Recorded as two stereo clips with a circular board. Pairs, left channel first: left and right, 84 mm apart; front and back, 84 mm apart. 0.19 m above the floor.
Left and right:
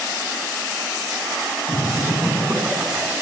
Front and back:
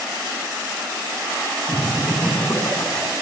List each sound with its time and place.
1.7 s laughter: 40° right, 2.5 m